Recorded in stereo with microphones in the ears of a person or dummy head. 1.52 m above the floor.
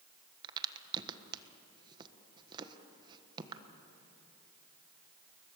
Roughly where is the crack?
Right.